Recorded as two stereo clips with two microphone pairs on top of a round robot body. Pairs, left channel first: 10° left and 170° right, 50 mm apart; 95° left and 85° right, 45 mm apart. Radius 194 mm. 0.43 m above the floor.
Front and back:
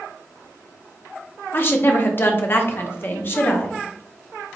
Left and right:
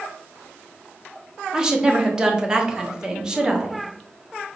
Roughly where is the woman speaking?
Ahead.